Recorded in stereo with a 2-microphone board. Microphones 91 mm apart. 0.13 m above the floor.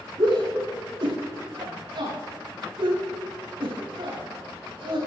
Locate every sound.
0.2 s a shout: 65° right (ahead or behind), 5 m